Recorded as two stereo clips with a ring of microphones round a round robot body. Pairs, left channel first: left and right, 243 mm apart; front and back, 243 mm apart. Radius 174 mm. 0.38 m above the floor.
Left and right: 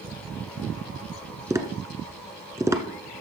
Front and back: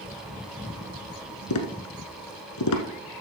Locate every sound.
1.5 s tapping: 10° right, 1.2 m